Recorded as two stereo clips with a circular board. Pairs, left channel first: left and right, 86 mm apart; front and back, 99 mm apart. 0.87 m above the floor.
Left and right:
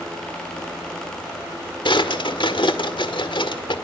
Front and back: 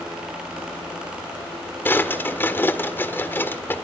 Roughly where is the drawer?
Left.